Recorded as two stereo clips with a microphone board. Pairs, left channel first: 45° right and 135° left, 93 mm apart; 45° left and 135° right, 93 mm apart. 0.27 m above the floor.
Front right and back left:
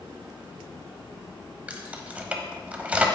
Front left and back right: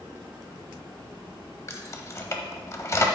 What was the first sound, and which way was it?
Keys jangling, 70° left.